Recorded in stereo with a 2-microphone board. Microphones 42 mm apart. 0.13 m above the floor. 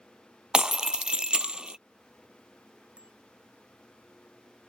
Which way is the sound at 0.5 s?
20° right (ahead or behind).